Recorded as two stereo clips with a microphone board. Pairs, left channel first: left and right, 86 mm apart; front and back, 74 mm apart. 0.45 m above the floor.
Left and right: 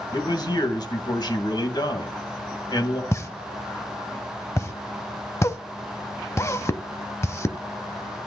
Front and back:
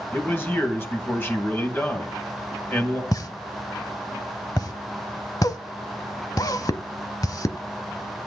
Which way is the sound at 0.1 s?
60° left.